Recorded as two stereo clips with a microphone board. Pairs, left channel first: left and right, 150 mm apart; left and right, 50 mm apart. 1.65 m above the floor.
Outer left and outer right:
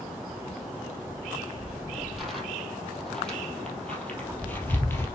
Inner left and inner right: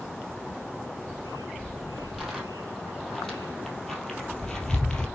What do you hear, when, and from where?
1.1 s footsteps: 5° right (ahead or behind), 4 m; by 5.1 s 15° left (ahead or behind), 3 m